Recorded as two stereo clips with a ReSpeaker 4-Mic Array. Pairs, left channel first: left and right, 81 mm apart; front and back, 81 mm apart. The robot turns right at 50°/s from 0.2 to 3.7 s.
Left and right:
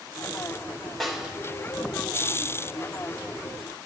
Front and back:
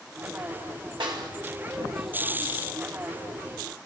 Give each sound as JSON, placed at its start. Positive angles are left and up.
{"t": 1.0, "sound": "a snare drum", "azimuth_deg": 175, "distance_m": 2.0}